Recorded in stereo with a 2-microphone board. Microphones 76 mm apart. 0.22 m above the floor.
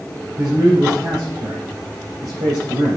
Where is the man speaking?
50° right (ahead or behind), 5 m.